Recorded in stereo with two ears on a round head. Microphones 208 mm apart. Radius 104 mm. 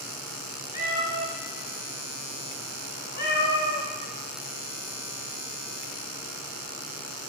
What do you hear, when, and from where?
0.7 s a cat meowing: 45° left (ahead or behind), 1.5 m